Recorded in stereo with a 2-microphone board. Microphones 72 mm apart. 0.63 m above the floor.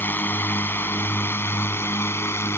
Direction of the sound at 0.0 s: 25° left (ahead or behind).